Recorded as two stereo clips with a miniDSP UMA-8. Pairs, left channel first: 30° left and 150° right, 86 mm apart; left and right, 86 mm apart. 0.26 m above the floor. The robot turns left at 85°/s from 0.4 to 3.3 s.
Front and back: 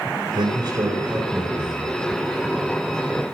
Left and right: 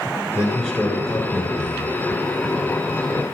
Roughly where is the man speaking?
Behind.